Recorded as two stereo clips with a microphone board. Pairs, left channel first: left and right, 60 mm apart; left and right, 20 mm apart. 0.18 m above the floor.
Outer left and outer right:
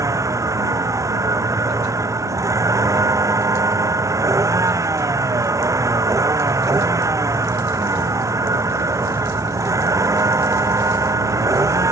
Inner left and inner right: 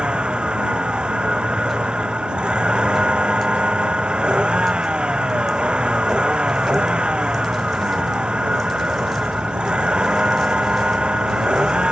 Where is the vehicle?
70° right (ahead or behind).